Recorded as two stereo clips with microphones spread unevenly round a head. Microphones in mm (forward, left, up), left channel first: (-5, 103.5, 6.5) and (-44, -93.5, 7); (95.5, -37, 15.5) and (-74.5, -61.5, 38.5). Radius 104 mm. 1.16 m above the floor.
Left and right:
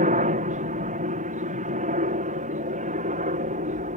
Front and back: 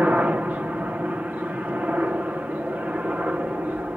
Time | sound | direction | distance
0.0 | a helicopter | 90° right | ?